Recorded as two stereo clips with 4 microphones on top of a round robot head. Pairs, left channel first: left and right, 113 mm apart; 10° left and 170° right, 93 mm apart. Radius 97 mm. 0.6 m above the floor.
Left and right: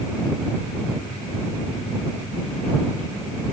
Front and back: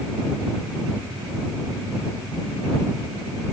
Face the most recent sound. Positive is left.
No sound to turn to.